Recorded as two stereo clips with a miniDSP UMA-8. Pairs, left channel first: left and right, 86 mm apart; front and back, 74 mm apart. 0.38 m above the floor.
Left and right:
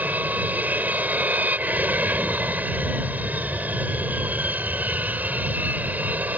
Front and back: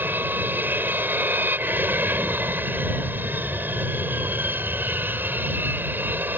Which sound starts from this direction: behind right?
An aircraft, at 0.0 s.